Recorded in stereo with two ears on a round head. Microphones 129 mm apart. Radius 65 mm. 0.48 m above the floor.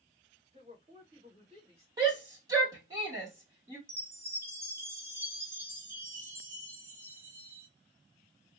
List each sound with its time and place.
0.5 s a woman speaking: 45° right (ahead or behind), 2.5 m
2.0 s a shout: 25° right (ahead or behind), 1.5 m
3.9 s a chime: 20° right (ahead or behind), 0.9 m